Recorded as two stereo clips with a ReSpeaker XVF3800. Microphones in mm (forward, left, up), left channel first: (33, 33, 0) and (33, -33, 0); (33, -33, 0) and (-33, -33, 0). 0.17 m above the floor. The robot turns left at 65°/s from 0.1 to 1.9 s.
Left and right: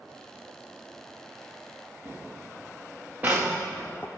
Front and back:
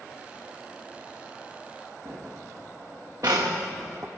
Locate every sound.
2.0 s footsteps: 135° right, 3 m; by 4.1 s 140° left, 0.6 m